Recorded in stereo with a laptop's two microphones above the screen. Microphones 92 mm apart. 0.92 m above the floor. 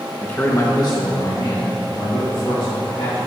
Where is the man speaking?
15° left (ahead or behind), 0.9 m; by 3.3 s 75° left (ahead or behind), 3.5 m.